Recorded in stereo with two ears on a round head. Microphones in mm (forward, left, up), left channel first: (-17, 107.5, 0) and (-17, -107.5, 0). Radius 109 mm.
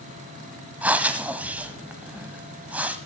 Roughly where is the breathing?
Centre.